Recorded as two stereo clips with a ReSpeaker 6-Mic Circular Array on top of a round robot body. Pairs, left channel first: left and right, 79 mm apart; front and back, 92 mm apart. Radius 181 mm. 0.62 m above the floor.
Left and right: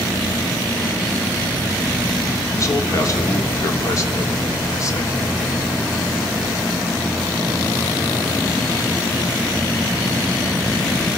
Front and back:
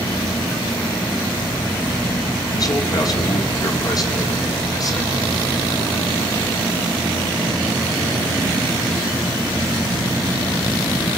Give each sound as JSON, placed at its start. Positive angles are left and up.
{"t": 2.5, "sound": "a man speaking", "azimuth_deg": 45, "distance_m": 2.5}